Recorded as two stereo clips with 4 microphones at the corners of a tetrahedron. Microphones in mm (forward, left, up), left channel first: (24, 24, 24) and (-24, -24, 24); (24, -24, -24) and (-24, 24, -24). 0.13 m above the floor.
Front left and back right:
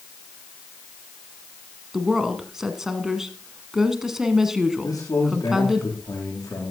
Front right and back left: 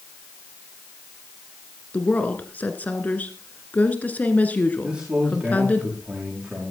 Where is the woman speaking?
60° right, 1.6 m.